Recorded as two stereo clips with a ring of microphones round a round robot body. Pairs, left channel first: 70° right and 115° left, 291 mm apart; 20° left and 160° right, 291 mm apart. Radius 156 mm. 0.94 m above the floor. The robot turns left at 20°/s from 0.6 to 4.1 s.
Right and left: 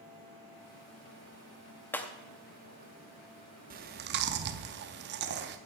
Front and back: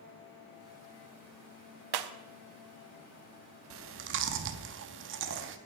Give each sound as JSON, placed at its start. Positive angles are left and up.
{"t": 1.9, "sound": "breaking glass", "azimuth_deg": -150, "distance_m": 0.6}
{"t": 3.7, "sound": "chewing", "azimuth_deg": 170, "distance_m": 0.5}